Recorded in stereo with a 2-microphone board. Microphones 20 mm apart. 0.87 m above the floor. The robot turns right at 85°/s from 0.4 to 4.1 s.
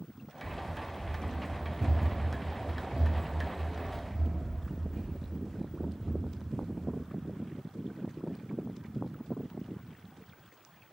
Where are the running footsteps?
40° left (ahead or behind), 1.0 m; by 7.0 s 30° right (ahead or behind), 4 m.